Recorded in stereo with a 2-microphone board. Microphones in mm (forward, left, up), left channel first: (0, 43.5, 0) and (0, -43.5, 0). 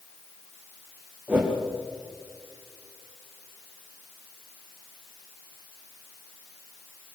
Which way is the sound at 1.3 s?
20° right (ahead or behind).